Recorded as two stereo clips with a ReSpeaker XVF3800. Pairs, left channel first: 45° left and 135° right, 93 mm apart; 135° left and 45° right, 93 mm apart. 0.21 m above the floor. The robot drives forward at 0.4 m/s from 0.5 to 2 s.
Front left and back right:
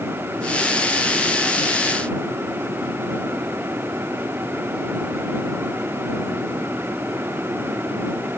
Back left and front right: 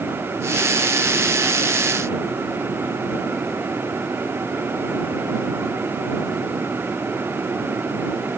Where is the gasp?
I don't hear a gasp.